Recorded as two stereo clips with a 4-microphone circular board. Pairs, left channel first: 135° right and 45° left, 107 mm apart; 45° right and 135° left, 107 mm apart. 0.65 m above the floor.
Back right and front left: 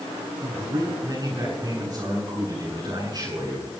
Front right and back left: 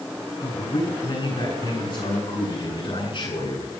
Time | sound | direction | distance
0.4 | a man speaking | 5° right | 9 m